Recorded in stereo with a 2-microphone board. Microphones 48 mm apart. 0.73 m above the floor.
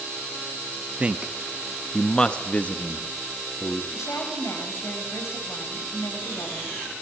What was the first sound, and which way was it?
A man speaking, 25° right (ahead or behind).